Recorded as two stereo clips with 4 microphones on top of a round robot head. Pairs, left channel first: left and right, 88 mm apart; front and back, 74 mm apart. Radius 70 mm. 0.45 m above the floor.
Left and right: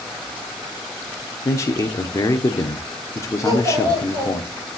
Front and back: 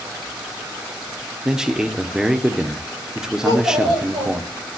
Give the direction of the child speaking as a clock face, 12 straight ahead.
5 o'clock.